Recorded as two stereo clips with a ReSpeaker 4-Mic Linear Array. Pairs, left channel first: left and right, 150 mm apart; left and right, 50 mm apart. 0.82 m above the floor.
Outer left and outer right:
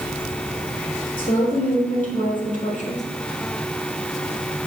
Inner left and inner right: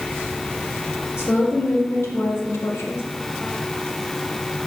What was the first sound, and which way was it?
A woman speaking, 65° left (ahead or behind).